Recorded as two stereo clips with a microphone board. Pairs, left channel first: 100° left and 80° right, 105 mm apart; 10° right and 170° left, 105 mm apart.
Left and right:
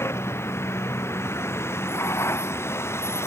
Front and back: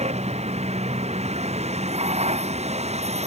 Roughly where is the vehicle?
Behind.